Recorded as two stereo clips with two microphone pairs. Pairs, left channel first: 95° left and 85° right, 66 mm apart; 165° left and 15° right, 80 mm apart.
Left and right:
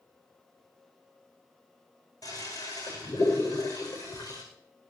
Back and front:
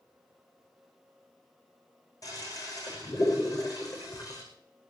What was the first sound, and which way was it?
A toilet flushing, 120° left.